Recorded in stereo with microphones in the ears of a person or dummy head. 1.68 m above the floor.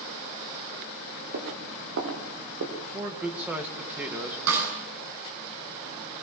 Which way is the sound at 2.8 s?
10° right (ahead or behind).